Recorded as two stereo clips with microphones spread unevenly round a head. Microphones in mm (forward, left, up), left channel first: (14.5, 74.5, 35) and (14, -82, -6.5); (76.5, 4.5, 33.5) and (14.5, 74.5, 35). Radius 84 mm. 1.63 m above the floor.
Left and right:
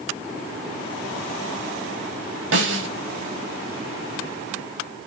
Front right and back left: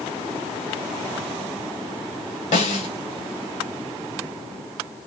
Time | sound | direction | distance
2.5 | a snare drum | 80° right | 5.5 m